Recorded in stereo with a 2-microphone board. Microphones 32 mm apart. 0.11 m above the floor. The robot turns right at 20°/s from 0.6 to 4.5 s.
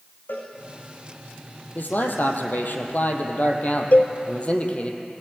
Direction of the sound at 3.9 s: 60° left (ahead or behind).